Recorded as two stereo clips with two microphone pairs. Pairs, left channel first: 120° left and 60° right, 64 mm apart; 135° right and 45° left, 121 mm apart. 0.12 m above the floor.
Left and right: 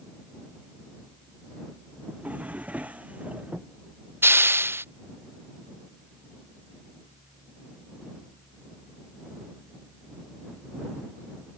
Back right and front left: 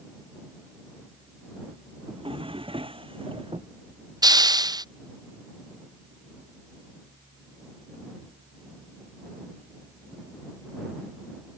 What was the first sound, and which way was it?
A drawer, 5° left.